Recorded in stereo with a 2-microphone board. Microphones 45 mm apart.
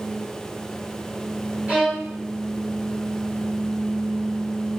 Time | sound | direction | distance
1.7 | a violin | 30° right (ahead or behind) | 3 m